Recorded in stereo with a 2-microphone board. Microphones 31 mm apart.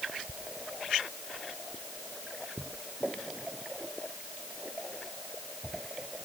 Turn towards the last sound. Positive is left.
No sound to turn to.